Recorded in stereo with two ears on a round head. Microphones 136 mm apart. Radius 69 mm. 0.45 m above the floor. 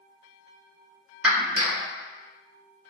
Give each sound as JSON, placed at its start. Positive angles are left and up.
{"t": 1.2, "sound": "a clap", "side_deg": -10, "distance_m": 1.1}